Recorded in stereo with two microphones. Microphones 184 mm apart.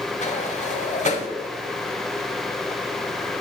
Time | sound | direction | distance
0.2 | a sliding door | 40° left (ahead or behind) | 0.9 m